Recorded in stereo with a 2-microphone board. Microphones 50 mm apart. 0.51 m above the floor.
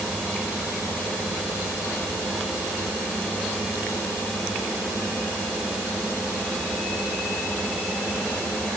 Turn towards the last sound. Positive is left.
No sound to turn to.